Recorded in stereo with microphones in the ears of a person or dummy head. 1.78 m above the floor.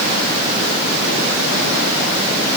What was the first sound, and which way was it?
Only background noise.